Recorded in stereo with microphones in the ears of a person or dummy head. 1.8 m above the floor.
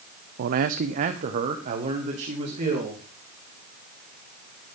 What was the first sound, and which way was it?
A man speaking, 55° right (ahead or behind).